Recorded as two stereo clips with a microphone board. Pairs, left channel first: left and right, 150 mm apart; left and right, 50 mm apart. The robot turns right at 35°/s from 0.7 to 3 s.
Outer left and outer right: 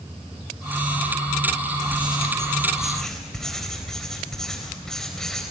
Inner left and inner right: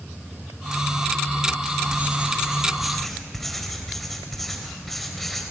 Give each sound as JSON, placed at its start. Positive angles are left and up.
{"t": 1.9, "sound": "writing", "azimuth_deg": -35, "distance_m": 4.0}